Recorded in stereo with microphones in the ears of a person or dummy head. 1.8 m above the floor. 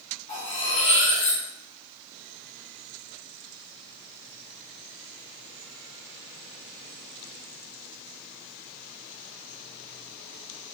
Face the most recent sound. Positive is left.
turn(degrees=30)  # may be behind; listen again after turning